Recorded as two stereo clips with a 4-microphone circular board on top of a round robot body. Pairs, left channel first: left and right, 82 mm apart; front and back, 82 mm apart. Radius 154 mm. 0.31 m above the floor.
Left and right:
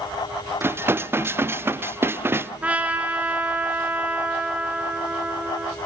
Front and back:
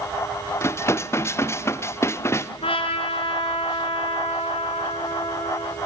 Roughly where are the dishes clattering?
Ahead right.